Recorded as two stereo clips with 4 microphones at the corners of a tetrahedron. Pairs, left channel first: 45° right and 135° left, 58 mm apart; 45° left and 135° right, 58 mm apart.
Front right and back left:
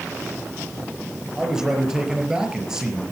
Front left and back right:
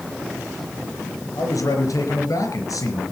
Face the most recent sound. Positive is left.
turn(degrees=55)